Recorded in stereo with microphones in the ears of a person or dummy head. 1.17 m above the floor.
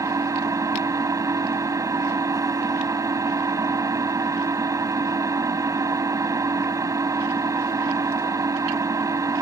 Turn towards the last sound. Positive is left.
turn(degrees=-25)  # may be behind; listen again after turning